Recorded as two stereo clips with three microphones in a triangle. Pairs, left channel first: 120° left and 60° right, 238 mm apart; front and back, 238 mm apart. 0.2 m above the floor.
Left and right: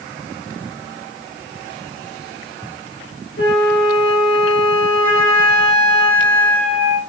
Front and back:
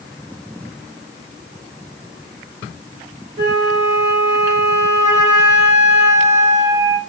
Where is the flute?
145° left, 2.5 m.